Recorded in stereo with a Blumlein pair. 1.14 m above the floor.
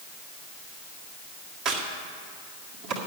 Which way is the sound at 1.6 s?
30° right.